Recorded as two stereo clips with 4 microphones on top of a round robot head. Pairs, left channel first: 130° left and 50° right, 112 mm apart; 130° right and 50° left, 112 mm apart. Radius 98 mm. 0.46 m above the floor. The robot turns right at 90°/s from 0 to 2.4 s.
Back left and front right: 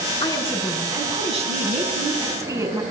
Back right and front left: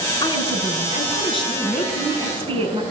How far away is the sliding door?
I don't hear a sliding door.